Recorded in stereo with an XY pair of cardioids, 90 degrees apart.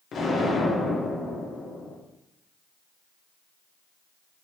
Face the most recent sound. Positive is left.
turn(degrees=65)